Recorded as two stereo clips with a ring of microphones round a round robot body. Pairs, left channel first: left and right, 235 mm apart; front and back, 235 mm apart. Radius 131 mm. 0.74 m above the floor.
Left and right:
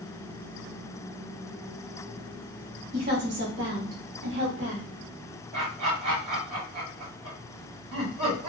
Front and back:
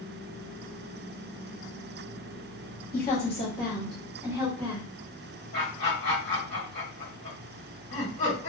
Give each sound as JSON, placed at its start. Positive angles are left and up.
{"t": 2.9, "sound": "a woman speaking", "azimuth_deg": -45, "distance_m": 1.1}
{"t": 5.5, "sound": "laughter", "azimuth_deg": -50, "distance_m": 1.6}